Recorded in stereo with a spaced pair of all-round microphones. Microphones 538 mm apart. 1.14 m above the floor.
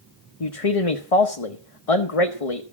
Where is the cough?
I don't hear a cough.